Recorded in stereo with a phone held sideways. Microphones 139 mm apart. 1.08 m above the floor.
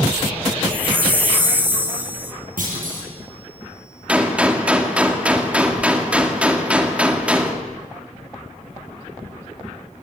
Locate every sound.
0.7 s a chime: 10° right (ahead or behind), 1.5 m
2.6 s a clunk: 75° right (ahead or behind), 9 m
4.1 s a gunshot: 10° right (ahead or behind), 2 m